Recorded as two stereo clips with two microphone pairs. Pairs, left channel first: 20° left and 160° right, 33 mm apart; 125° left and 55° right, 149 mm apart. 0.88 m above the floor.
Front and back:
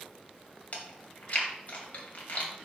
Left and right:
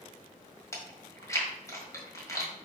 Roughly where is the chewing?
Ahead left.